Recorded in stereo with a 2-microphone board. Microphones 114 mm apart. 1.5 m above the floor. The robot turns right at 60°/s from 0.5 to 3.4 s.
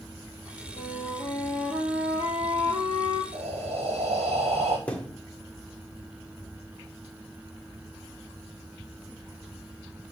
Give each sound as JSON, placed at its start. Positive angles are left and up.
{"t": 0.8, "sound": "a flute", "azimuth_deg": 130, "distance_m": 4.5}
{"t": 3.3, "sound": "breathing", "side_deg": -75, "distance_m": 4.5}
{"t": 4.9, "sound": "a thud", "side_deg": 10, "distance_m": 1.5}